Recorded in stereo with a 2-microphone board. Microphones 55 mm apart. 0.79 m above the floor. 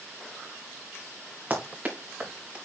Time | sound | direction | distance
1.5 | running footsteps | 30° right (ahead or behind) | 4.5 m